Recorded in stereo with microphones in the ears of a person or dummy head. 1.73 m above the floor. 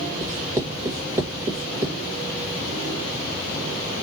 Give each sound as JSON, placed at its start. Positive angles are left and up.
{"t": 0.2, "sound": "writing", "side_deg": -15, "distance_m": 1.6}